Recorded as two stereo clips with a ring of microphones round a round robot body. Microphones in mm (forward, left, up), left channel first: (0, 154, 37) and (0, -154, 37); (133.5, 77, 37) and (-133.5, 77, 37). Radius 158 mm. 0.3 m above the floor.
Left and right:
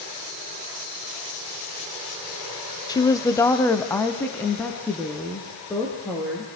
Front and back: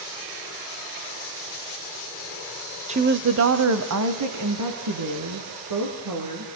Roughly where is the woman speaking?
Behind left.